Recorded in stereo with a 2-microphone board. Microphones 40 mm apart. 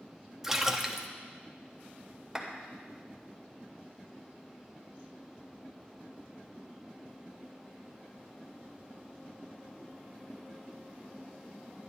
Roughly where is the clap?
Centre.